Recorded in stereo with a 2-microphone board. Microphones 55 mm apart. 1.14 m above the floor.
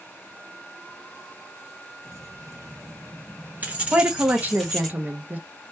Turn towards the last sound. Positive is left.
turn(degrees=-30)  # may be behind; listen again after turning